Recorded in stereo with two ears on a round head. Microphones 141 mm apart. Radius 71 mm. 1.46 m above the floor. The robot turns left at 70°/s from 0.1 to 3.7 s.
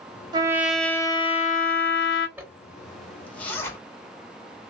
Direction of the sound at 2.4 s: 10° right (ahead or behind).